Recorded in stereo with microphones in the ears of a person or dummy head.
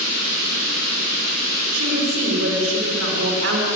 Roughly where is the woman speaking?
Right.